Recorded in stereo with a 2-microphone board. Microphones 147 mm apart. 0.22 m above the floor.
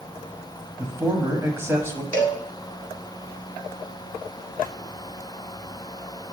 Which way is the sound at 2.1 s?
10° left (ahead or behind).